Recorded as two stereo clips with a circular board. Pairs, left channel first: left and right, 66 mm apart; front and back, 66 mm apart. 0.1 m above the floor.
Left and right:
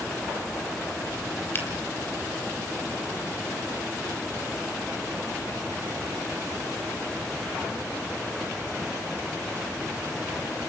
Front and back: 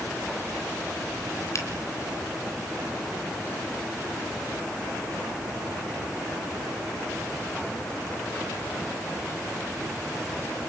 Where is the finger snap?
35° left, 2.5 m.